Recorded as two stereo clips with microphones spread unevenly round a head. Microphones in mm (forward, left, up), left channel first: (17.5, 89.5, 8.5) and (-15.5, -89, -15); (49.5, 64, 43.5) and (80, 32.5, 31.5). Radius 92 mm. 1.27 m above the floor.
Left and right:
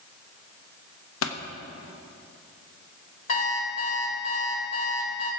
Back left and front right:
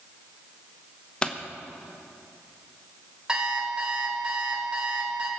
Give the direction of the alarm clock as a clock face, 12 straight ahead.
11 o'clock.